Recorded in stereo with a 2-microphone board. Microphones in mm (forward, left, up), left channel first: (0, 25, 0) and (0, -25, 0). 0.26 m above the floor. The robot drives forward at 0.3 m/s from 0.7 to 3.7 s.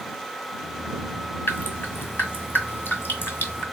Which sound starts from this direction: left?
Dripping, at 1.5 s.